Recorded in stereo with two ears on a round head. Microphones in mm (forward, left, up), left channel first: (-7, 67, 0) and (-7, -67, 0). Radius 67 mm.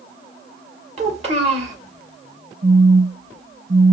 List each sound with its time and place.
1.0 s a child speaking: 45° right (ahead or behind), 1.5 m
2.6 s a phone buzzing: 35° right (ahead or behind), 1.1 m